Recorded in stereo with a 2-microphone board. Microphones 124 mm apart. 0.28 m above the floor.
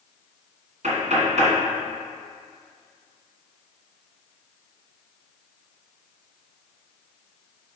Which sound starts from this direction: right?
Knocking, at 0.8 s.